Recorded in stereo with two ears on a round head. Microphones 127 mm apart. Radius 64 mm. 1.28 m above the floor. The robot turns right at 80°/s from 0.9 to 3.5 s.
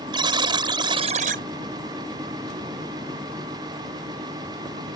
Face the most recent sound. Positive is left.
turn(degrees=60)